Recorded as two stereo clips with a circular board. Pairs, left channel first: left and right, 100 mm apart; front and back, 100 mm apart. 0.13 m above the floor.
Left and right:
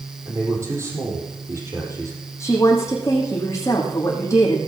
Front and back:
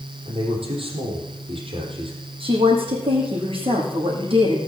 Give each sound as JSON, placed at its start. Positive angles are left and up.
{"t": 0.2, "sound": "a man speaking", "azimuth_deg": -150, "distance_m": 4.0}
{"t": 2.4, "sound": "a woman speaking", "azimuth_deg": 150, "distance_m": 5.5}